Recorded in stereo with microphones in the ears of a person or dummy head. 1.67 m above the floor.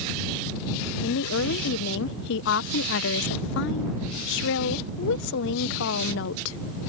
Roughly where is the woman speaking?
Left.